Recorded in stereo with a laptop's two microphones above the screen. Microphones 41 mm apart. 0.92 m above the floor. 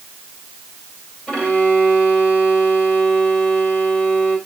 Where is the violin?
20° left (ahead or behind), 2 m.